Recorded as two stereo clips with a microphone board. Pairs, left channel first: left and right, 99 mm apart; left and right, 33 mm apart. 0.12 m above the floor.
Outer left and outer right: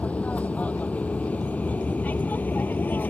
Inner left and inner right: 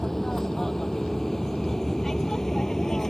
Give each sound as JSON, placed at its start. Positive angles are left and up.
{"t": 0.0, "sound": "an aircraft", "side_deg": 15}